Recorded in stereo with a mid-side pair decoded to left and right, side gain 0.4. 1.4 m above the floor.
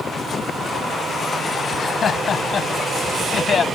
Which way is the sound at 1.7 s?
60° left.